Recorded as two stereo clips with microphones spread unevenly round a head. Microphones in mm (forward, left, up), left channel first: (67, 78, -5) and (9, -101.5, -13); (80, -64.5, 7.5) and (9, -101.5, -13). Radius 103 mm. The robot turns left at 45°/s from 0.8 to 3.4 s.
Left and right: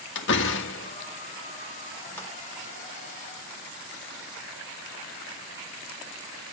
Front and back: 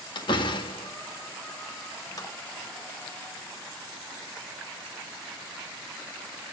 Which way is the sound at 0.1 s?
55° left.